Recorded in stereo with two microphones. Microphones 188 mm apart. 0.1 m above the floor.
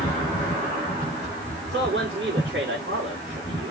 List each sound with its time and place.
1.6 s a man speaking: 80° right, 7.5 m